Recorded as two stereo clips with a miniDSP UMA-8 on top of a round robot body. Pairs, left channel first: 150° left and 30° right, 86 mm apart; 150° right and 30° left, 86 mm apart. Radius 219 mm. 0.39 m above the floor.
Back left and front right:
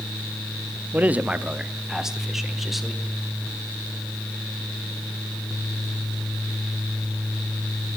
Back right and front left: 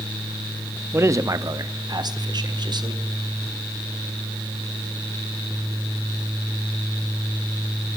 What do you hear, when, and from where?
0.9 s a man speaking: 15° left, 1.1 m; by 3.0 s 60° left, 2.5 m